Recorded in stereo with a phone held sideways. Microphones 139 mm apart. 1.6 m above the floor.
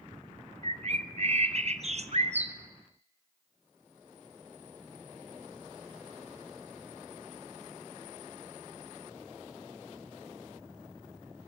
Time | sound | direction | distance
0.6 | a bird | 50° right (ahead or behind) | 1.0 m